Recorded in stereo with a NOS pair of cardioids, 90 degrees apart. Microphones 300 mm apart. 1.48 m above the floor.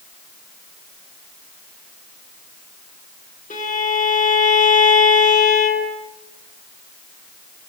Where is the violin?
30° left, 6.5 m.